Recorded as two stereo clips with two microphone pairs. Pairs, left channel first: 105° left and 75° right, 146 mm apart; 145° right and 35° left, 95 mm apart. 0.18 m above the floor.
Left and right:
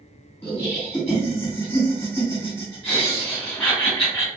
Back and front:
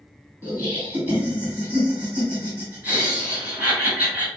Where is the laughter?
75° left, 1.5 m.